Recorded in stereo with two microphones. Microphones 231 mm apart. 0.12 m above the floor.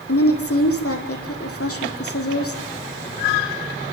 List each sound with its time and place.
0.1 s a woman speaking: 80° left, 4.5 m